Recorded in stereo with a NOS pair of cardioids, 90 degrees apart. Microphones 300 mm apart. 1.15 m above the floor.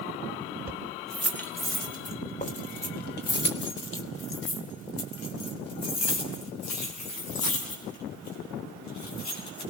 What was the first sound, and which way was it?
Keys jangling, 5° right.